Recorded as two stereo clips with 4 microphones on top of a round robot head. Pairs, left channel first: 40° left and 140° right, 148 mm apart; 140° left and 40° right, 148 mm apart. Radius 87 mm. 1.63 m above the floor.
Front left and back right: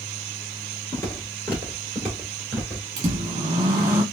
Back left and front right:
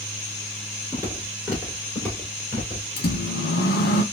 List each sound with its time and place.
0.9 s footsteps: 15° right, 1.6 m; by 2.9 s 120° left, 1.7 m
3.0 s a microwave: 160° left, 1.0 m